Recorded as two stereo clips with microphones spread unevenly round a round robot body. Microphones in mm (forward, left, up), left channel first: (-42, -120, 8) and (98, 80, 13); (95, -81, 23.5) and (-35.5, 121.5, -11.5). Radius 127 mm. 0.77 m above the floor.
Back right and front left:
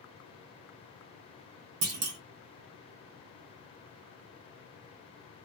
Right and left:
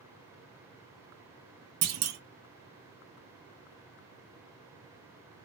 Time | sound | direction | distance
1.8 | a clunk | 95° left | 0.6 m